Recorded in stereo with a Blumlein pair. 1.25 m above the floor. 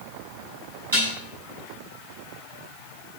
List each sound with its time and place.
0.9 s dishes clattering: 65° right, 6 m